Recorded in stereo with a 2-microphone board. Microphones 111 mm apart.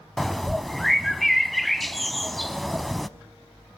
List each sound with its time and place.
0.2 s a bird: centre (ahead or behind), 0.5 m